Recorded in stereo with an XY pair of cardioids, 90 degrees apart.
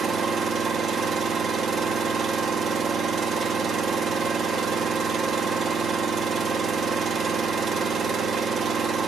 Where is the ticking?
I don't hear ticking.